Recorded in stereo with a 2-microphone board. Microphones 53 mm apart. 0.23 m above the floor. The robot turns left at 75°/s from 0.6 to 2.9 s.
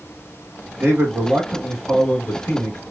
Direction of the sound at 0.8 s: 110° right.